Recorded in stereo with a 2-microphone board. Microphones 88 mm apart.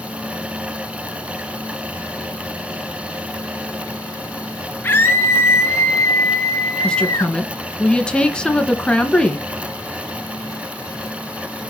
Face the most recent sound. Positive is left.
turn(degrees=10)  # may be behind; listen again after turning